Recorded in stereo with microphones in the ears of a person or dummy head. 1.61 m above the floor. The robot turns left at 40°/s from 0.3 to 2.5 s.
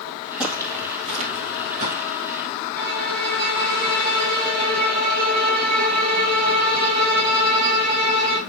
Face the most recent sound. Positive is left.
turn(degrees=-55)  # may be behind; listen again after turning